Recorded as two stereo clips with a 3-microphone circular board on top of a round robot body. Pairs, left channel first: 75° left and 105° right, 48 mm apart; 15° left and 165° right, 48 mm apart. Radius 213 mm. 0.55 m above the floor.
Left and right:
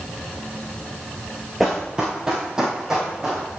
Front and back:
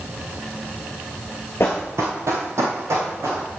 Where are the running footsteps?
20° right, 0.5 m; by 3.5 s straight behind, 2.5 m.